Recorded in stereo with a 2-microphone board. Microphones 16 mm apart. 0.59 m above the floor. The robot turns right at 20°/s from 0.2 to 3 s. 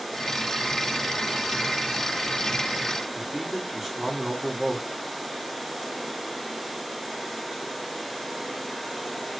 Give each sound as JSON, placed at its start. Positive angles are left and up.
{"t": 3.1, "sound": "a man speaking", "side_deg": -20, "distance_m": 0.9}